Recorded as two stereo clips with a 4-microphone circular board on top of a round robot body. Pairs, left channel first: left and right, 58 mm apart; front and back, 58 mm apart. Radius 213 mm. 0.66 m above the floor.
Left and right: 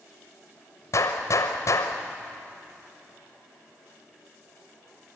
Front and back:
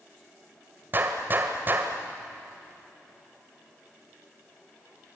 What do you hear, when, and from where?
0.9 s a gunshot: 125° left, 0.9 m